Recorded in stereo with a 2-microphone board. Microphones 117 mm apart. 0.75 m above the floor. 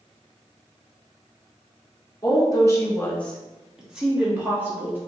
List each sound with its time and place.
2.2 s a woman speaking: 30° left (ahead or behind), 0.8 m; by 5.0 s 15° right (ahead or behind), 1.5 m